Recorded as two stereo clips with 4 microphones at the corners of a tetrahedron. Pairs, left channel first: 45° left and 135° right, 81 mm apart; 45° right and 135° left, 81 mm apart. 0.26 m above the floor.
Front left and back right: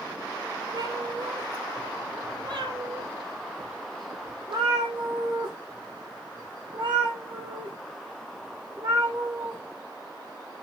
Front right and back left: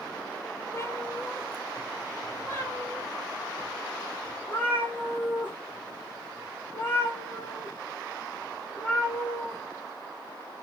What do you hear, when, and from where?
0.7 s a cat meowing: 100° right, 2 m; by 9.6 s 115° right, 8 m